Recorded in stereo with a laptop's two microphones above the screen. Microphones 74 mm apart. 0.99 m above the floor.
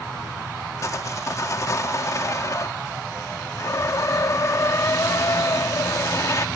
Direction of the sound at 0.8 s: 45° left (ahead or behind).